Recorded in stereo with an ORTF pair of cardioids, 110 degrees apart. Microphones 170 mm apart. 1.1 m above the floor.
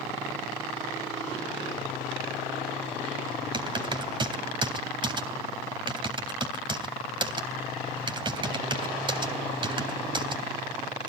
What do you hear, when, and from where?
3.5 s typing on a keyboard: 30° right, 3.5 m